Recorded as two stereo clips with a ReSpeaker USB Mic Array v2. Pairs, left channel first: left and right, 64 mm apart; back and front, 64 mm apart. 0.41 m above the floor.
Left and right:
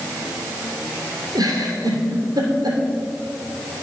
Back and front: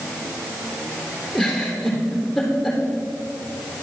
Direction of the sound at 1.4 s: 90° right.